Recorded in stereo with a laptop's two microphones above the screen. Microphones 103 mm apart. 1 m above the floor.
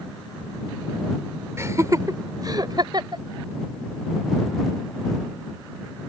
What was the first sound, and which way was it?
Laughter, 25° right (ahead or behind).